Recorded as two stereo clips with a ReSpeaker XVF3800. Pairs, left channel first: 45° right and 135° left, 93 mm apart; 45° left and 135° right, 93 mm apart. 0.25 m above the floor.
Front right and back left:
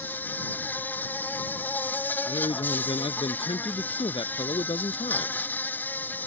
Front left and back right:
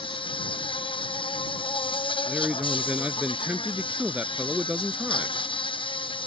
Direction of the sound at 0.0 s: 25° left.